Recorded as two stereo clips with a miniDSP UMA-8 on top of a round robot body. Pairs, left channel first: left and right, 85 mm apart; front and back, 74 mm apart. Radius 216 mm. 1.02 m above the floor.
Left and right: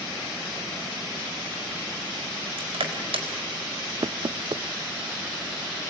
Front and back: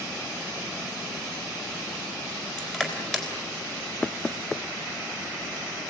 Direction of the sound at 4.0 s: 75° right.